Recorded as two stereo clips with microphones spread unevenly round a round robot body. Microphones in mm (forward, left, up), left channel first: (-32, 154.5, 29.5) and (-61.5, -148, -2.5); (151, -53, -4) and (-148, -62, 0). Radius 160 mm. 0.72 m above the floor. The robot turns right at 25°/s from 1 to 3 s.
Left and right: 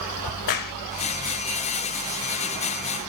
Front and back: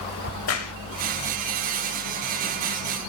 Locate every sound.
0.2 s a crack: 50° left, 1.0 m